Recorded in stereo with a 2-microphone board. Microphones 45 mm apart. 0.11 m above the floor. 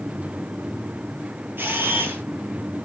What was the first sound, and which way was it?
A camera shutter, 50° right (ahead or behind).